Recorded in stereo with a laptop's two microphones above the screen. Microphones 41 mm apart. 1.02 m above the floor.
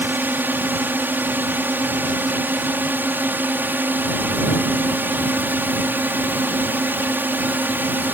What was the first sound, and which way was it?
A drone, 60° right (ahead or behind).